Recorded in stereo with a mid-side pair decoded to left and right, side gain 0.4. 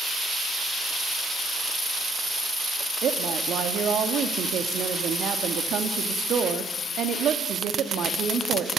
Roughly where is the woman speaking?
Right.